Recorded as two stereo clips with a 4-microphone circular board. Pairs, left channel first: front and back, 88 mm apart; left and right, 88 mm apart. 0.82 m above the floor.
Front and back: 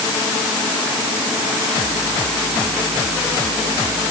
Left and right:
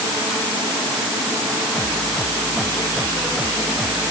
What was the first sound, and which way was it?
Only background noise.